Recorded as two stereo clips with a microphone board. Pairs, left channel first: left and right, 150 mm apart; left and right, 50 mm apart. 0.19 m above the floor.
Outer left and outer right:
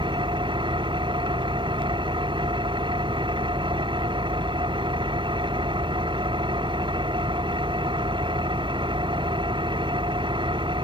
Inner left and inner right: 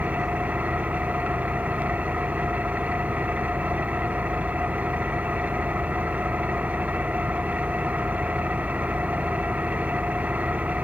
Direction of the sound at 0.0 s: 35° right (ahead or behind).